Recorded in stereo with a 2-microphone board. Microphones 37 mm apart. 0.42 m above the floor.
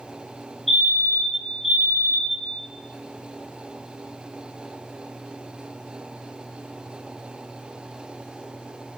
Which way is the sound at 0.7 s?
10° left (ahead or behind).